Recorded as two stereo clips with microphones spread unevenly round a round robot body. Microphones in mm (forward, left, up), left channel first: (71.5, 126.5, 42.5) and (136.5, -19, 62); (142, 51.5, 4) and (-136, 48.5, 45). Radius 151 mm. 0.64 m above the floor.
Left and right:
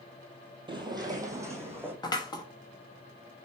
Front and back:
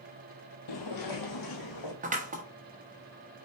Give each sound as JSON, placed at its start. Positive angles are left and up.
{"t": 0.7, "sound": "footsteps", "azimuth_deg": -15, "distance_m": 1.1}
{"t": 2.0, "sound": "scissors", "azimuth_deg": 130, "distance_m": 1.1}